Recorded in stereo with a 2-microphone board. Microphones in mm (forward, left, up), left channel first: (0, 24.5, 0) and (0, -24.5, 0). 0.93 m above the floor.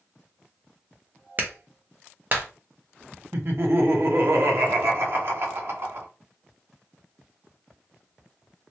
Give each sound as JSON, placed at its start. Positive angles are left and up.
{"t": 1.4, "sound": "a clap", "side_deg": -40, "distance_m": 0.7}
{"t": 3.3, "sound": "laughter", "side_deg": -55, "distance_m": 0.9}